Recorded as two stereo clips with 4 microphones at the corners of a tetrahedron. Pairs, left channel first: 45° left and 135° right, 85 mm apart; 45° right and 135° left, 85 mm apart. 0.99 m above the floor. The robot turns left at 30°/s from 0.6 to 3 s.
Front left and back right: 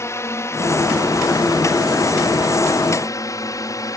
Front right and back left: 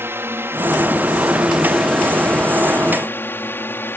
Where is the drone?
85° left; by 4.0 s 15° left.